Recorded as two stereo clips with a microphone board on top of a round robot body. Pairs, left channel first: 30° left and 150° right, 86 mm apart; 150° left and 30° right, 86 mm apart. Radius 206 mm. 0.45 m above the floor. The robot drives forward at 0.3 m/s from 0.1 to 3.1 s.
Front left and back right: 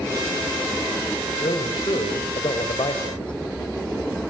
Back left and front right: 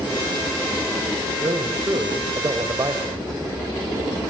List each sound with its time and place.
1.4 s a man speaking: 15° left, 3.5 m